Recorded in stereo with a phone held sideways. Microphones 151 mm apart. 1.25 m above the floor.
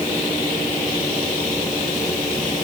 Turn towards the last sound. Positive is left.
No sound to turn to.